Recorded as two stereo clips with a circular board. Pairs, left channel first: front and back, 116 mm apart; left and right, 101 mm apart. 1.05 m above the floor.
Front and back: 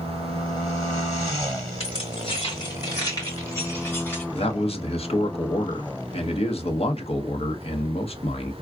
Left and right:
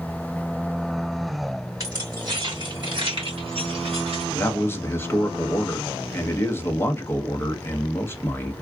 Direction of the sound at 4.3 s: 25° left.